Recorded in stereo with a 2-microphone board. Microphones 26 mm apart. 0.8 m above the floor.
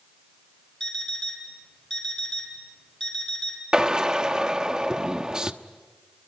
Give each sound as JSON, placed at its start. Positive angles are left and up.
{"t": 0.8, "sound": "an alarm clock", "side_deg": 25, "distance_m": 5.0}
{"t": 3.7, "sound": "a drill", "side_deg": -25, "distance_m": 1.0}